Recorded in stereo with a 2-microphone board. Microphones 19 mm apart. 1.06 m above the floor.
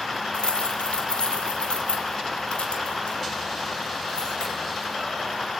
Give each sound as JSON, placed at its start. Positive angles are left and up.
{"t": 0.3, "sound": "keys jangling", "side_deg": 70, "distance_m": 2.0}